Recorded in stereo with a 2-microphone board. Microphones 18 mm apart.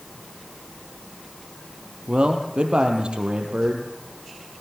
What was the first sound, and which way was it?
A man speaking, 70° right (ahead or behind).